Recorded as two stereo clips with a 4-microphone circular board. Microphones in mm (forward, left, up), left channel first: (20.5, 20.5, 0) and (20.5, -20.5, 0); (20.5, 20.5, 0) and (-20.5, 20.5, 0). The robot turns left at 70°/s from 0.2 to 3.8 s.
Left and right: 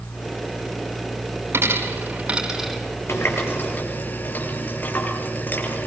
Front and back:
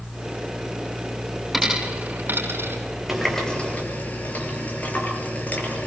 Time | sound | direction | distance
1.5 | a dropped coin | 100° right | 4 m
3.1 | a running tap | 95° left | 5.5 m